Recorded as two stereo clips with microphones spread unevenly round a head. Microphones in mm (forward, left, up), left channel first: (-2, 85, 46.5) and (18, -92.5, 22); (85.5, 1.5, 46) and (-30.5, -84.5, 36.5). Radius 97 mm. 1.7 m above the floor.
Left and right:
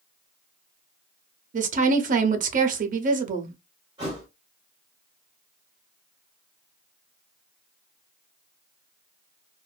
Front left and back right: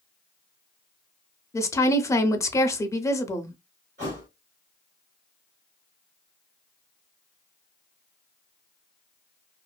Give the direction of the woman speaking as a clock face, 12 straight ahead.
1 o'clock.